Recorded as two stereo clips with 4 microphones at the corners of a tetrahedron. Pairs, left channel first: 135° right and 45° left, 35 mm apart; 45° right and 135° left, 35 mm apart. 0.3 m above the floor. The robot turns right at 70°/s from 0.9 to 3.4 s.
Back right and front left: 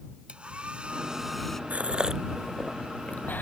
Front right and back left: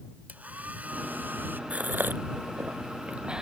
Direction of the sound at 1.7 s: 90° left.